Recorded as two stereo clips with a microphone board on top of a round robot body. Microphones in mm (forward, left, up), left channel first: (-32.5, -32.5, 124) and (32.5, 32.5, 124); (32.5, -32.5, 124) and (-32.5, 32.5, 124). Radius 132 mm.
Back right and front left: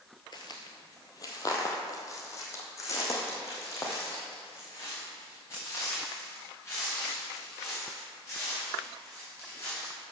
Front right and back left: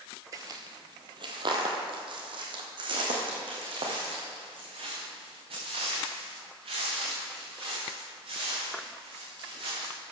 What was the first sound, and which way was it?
Footsteps, 170° right.